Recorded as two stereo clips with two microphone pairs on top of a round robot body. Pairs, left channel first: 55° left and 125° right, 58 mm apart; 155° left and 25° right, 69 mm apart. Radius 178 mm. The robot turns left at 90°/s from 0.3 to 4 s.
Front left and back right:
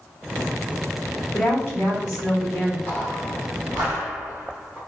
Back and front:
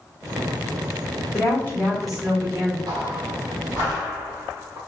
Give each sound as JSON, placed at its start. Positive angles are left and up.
{"t": 1.3, "sound": "a woman speaking", "azimuth_deg": 130, "distance_m": 1.4}
{"t": 2.9, "sound": "footsteps", "azimuth_deg": -5, "distance_m": 1.6}